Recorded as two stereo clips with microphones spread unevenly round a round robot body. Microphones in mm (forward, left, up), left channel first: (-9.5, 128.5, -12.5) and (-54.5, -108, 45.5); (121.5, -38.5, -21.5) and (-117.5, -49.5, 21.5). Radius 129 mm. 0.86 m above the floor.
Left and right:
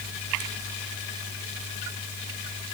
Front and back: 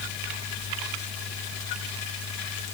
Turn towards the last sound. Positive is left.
No sound to turn to.